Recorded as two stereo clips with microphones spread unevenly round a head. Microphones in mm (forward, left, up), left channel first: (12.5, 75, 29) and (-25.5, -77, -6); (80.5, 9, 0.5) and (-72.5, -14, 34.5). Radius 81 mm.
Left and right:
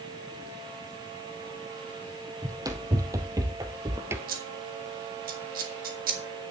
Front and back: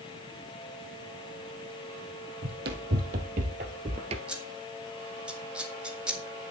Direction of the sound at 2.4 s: 175° right.